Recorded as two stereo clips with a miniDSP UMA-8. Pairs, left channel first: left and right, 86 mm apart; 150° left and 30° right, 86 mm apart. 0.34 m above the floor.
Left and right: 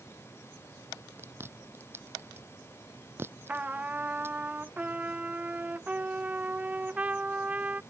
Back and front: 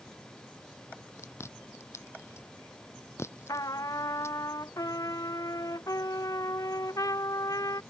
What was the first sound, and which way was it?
Chewing, 150° right.